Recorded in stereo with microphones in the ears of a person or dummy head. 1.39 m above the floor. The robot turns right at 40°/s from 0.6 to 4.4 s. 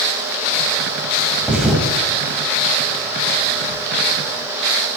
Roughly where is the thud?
Centre.